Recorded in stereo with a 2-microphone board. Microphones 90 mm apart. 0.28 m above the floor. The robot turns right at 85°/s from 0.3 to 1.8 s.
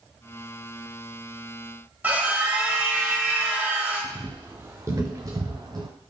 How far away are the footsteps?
About 1.4 m.